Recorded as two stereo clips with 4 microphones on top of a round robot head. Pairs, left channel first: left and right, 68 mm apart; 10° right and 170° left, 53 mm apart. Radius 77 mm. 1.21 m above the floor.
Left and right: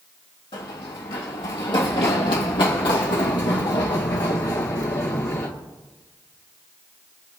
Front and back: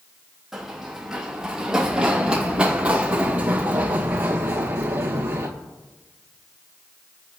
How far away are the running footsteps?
About 3.5 m.